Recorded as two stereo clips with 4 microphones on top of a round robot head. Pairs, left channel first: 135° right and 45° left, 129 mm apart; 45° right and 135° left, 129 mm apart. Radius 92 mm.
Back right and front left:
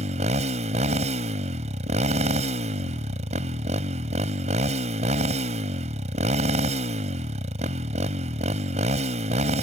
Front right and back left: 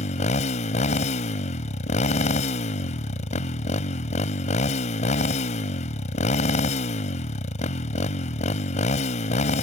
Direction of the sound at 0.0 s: Straight ahead.